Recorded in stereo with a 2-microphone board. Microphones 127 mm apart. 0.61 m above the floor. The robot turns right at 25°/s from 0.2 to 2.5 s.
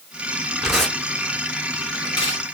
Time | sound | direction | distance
0.6 | tearing paper | 5° right (ahead or behind) | 1.8 m